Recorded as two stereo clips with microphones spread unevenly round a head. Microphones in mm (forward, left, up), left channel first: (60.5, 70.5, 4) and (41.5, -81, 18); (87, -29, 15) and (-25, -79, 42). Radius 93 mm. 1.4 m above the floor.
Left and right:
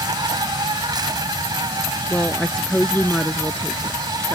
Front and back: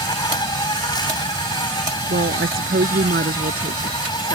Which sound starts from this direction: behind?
A woman speaking, at 2.1 s.